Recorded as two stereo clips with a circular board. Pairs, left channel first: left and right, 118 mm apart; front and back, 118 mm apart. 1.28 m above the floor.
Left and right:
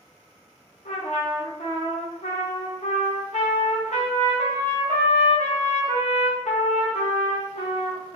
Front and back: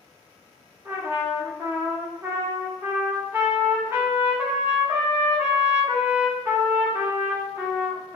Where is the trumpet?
110° left, 0.7 m.